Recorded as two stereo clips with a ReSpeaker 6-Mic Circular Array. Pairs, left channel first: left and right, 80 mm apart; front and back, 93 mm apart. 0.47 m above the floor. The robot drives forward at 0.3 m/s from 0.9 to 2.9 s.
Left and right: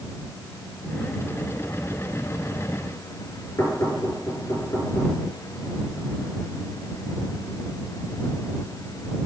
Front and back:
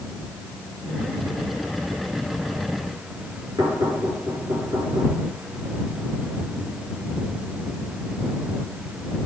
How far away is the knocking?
About 6.5 m.